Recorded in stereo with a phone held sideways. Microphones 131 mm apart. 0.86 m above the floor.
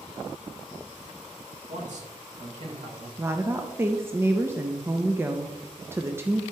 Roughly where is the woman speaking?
Centre.